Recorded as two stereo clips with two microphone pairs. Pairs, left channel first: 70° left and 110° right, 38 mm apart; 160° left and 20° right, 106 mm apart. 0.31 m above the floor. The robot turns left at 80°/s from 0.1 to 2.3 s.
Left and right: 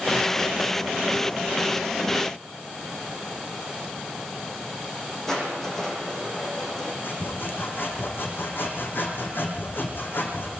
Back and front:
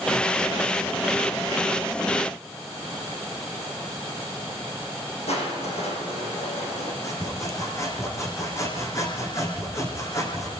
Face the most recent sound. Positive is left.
turn(degrees=95)